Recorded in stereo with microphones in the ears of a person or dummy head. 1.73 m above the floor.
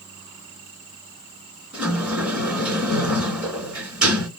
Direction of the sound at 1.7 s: 5° right (ahead or behind).